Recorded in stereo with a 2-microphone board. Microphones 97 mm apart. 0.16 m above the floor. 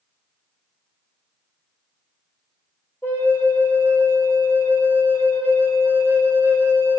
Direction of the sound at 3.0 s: 25° left (ahead or behind).